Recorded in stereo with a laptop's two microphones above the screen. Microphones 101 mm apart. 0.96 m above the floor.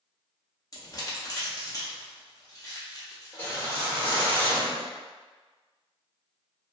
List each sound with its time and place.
0.7 s crumpling: 35° left (ahead or behind), 0.9 m
3.3 s a whoosh: 20° left (ahead or behind), 1.1 m